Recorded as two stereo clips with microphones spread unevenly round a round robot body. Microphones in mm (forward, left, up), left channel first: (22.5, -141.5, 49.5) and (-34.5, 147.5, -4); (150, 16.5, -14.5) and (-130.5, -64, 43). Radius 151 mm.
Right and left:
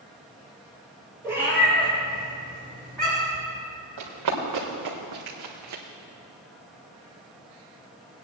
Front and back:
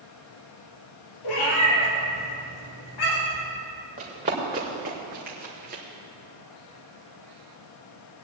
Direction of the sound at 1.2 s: 15° left.